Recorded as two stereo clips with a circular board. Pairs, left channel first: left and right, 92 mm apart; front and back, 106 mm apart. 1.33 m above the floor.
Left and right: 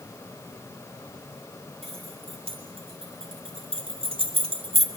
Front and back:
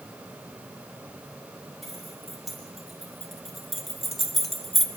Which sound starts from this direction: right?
Keys jangling, at 1.8 s.